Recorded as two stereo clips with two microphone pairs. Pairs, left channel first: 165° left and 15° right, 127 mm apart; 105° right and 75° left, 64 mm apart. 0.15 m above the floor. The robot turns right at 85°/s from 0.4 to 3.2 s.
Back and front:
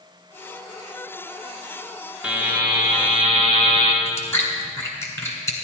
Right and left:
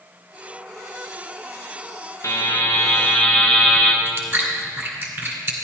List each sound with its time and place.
2.2 s a buzzer: 100° right, 1.4 m; by 4.0 s 20° right, 1.4 m
4.0 s chewing: 105° left, 1.8 m